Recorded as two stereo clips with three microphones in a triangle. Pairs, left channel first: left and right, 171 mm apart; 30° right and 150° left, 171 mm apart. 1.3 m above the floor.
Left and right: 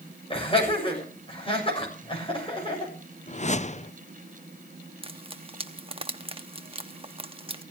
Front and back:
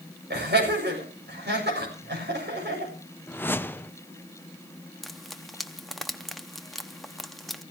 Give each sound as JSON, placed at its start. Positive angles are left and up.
{"t": 0.3, "sound": "laughter", "azimuth_deg": 145, "distance_m": 7.5}
{"t": 3.3, "sound": "a whoosh", "azimuth_deg": 45, "distance_m": 0.6}
{"t": 5.0, "sound": "frying", "azimuth_deg": -120, "distance_m": 0.8}